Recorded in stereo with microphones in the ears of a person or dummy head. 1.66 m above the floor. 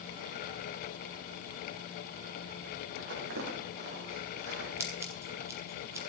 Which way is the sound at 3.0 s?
70° right (ahead or behind).